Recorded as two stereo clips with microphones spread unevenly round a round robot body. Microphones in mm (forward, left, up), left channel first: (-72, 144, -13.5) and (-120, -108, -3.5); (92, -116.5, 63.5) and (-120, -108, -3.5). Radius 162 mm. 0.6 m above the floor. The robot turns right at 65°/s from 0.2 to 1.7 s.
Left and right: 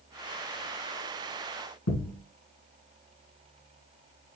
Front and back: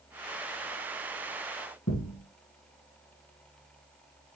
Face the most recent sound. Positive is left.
turn(degrees=40)